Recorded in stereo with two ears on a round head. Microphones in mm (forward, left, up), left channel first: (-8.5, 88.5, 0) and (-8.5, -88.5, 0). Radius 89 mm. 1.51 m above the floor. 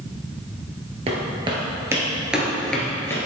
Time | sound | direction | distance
1.1 | footsteps | 30° right (ahead or behind) | 1.9 m